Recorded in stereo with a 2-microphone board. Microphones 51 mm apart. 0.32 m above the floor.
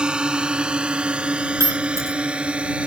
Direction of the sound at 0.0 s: 20° right (ahead or behind).